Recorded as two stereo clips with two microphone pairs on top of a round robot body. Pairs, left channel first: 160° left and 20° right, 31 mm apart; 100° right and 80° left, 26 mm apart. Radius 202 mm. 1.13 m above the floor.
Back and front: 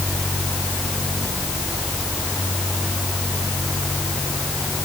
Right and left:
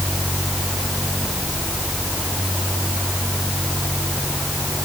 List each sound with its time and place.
Only background noise.